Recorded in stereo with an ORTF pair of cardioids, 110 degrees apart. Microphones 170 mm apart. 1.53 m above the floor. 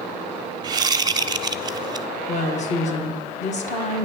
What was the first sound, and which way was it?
A whoosh, 25° right.